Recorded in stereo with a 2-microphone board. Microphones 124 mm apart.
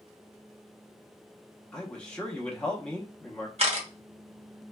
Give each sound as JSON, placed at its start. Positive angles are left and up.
{"t": 1.7, "sound": "a man speaking", "side_deg": 10, "distance_m": 0.7}
{"t": 3.6, "sound": "a camera shutter", "side_deg": -50, "distance_m": 1.0}